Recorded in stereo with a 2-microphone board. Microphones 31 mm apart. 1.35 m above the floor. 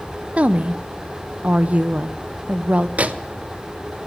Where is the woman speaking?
45° right (ahead or behind), 0.7 m.